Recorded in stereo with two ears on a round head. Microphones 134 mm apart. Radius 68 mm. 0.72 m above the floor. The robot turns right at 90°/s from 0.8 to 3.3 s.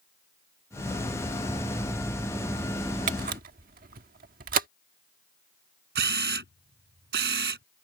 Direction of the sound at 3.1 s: 55° right (ahead or behind).